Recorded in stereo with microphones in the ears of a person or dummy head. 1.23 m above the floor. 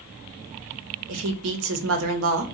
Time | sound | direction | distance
1.1 | a woman speaking | 85° right | 1.0 m